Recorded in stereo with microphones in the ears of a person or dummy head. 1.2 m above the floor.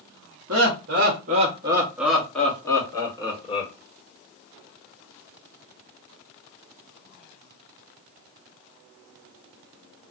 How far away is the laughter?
About 1.1 m.